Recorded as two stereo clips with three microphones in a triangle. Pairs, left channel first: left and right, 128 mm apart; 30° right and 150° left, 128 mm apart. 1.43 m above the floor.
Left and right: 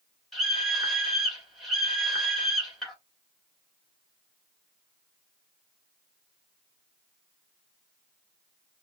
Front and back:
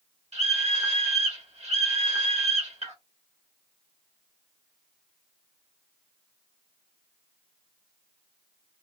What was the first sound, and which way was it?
A scream, straight behind.